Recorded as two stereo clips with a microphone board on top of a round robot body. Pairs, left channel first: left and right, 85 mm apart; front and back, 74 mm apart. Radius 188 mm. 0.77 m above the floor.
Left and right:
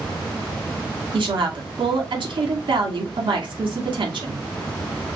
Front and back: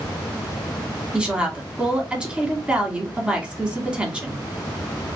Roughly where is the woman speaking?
Right.